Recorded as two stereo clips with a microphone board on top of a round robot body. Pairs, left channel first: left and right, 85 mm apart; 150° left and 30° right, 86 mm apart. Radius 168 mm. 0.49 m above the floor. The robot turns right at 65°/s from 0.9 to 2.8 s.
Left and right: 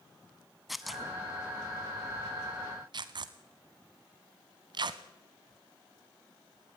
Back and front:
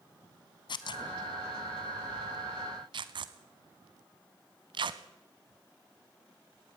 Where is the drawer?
No drawer in this recording.